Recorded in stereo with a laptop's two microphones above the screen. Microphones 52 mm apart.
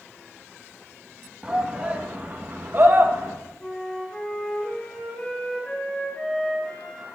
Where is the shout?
15° right (ahead or behind), 1.4 m; by 3.4 s 60° right (ahead or behind), 1.1 m.